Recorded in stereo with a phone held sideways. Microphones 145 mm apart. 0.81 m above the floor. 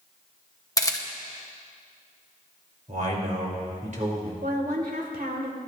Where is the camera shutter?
25° left (ahead or behind), 1.0 m.